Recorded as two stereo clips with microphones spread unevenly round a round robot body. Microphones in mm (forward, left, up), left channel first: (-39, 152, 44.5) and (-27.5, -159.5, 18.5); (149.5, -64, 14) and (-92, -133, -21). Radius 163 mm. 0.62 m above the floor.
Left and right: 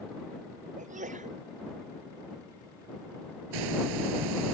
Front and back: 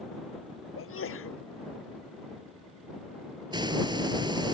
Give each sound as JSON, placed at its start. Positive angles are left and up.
{"t": 0.8, "sound": "a sneeze", "azimuth_deg": -20}
{"t": 3.5, "sound": "a hiss", "azimuth_deg": -90}